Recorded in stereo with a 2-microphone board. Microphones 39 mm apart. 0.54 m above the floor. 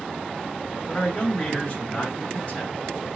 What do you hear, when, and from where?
0.9 s a man speaking: 35° left (ahead or behind), 1.5 m